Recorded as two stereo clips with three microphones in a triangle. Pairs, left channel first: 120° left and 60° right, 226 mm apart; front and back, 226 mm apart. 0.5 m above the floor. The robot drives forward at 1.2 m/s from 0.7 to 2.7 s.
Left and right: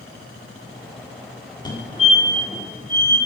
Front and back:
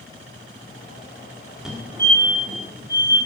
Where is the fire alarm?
95° left, 1.7 m; by 3.2 s 155° left, 2 m.